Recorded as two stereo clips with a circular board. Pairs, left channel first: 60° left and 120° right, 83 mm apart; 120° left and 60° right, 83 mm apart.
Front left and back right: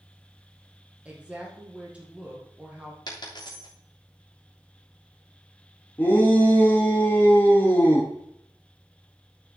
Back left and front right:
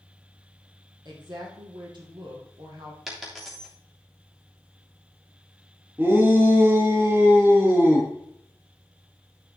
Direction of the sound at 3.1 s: 30° left.